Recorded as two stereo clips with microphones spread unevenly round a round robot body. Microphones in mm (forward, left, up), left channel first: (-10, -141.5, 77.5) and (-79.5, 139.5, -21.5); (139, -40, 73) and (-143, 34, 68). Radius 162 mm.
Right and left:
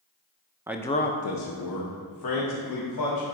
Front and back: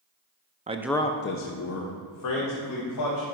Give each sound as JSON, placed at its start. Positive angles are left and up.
{"t": 0.7, "sound": "a man speaking", "azimuth_deg": 125, "distance_m": 0.7}